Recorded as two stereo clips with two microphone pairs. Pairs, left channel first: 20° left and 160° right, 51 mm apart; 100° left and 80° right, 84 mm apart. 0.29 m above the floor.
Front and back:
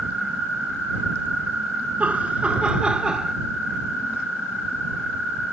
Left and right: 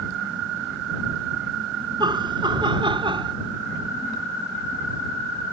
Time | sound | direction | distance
2.0 | laughter | 100° right | ?